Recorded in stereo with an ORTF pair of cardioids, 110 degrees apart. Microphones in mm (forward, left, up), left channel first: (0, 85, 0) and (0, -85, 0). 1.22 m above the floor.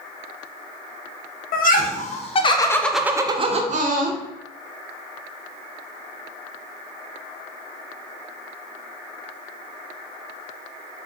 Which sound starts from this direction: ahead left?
Laughter, at 1.5 s.